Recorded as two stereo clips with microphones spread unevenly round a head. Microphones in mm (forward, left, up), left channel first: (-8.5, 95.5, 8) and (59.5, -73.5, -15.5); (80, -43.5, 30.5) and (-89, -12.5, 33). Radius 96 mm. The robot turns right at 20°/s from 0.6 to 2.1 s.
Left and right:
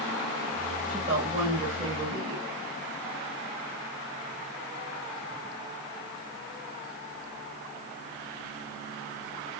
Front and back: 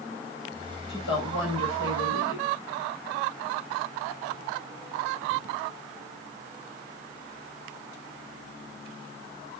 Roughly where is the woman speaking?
Ahead right.